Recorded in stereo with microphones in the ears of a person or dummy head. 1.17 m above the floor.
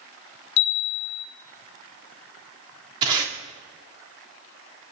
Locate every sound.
0.6 s a chime: 65° left (ahead or behind), 1.0 m
3.0 s tape being pulled: 30° right (ahead or behind), 3 m